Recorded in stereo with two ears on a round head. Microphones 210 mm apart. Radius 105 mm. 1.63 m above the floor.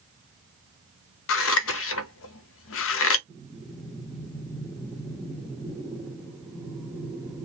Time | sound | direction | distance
1.3 | scissors | 60° left (ahead or behind) | 0.6 m
3.3 | breathing | centre (ahead or behind) | 1.0 m